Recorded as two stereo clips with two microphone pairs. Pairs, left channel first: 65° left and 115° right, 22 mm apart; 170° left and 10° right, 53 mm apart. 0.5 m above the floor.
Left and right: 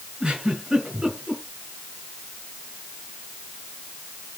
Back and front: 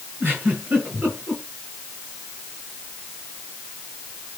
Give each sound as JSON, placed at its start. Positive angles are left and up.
{"t": 0.2, "sound": "a giggle", "azimuth_deg": -65, "distance_m": 6.0}